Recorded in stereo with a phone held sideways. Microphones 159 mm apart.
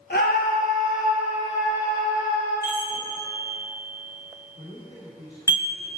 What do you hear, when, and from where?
0.1 s a scream: 80° left, 1.4 m; by 2.5 s 25° left (ahead or behind), 4 m
2.6 s a chime: 25° left (ahead or behind), 1.9 m
4.6 s a man speaking: 50° left (ahead or behind), 3 m